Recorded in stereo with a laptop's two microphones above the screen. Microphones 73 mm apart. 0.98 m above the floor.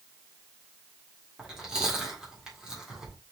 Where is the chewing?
10° right (ahead or behind), 1.7 m.